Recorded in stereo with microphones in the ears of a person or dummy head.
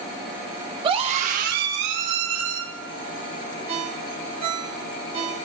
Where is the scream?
25° right (ahead or behind), 1.2 m; by 2.6 s 80° right, 2 m.